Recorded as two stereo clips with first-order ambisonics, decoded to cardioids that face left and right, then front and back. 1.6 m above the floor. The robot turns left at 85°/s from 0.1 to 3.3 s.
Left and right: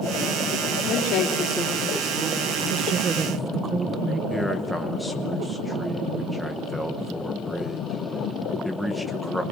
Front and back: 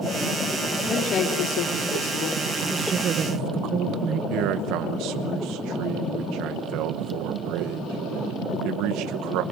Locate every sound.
0.9 s a woman speaking: 85° left, 4 m; by 2.4 s 45° right, 4 m
2.7 s a woman speaking: 100° right, 0.7 m; by 4.2 s 155° right, 0.7 m
4.3 s a man speaking: straight behind, 0.9 m